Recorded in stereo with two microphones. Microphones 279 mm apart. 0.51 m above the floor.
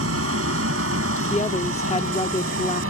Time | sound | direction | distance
0.0 | an aircraft | 50° right (ahead or behind) | ?
1.3 | a woman speaking | 20° left (ahead or behind) | ?